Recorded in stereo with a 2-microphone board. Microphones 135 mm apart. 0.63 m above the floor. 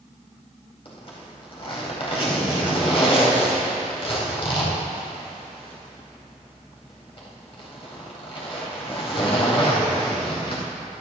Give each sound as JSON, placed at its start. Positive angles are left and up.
{"t": 0.8, "sound": "a zipper", "side_deg": 45, "distance_m": 4.5}